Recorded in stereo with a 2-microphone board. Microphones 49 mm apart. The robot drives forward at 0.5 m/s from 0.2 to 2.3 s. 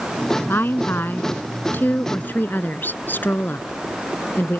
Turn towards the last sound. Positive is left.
turn(degrees=40)  # may be behind; listen again after turning